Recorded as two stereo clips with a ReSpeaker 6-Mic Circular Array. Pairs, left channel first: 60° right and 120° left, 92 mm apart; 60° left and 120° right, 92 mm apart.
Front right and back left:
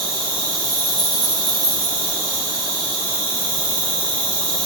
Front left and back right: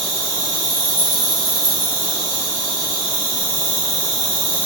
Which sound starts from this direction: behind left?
An insect, at 0.0 s.